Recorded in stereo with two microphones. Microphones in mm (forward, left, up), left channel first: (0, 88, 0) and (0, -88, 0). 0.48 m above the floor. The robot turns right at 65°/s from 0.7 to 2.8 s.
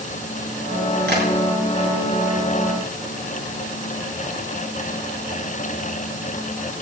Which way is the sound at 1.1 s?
70° right (ahead or behind).